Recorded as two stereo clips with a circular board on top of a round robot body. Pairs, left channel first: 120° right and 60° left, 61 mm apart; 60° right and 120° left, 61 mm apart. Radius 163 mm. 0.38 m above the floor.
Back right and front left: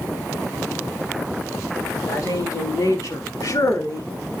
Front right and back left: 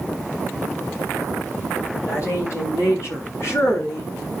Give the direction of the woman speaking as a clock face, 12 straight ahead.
3 o'clock.